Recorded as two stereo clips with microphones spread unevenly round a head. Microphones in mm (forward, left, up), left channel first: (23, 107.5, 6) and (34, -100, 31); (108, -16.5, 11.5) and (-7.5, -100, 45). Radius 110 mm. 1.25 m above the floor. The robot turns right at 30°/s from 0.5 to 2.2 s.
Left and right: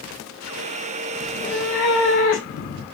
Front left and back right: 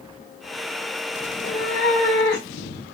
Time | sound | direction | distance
1.3 | a cat meowing | 45° left | 1.2 m